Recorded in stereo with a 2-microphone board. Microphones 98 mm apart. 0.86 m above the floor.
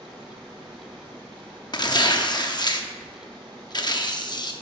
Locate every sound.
0.0 s running water: 45° right (ahead or behind), 4 m
1.7 s tearing paper: 45° left (ahead or behind), 0.7 m